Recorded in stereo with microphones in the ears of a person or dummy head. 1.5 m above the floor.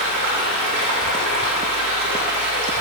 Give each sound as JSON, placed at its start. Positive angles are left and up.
{"t": 0.0, "sound": "running water", "side_deg": -60, "distance_m": 1.5}